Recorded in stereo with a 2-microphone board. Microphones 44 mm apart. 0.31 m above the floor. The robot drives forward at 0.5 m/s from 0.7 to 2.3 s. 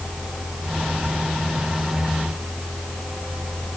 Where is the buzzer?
No buzzer in this recording.